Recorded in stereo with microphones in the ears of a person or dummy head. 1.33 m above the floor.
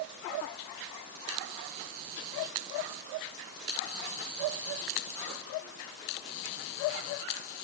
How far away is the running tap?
I don't hear a running tap.